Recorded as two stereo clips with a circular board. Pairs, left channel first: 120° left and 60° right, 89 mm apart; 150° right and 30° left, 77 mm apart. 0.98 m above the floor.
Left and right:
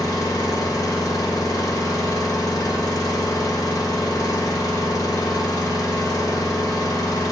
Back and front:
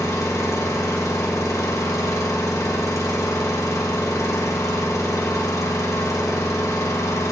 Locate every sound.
0.0 s an engine running: 165° left, 1.0 m